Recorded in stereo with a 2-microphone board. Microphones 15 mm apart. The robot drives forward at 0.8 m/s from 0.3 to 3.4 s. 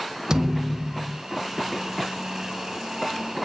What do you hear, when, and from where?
0.3 s a thud: 45° right (ahead or behind), 1.2 m; by 1.2 s 75° right (ahead or behind), 0.9 m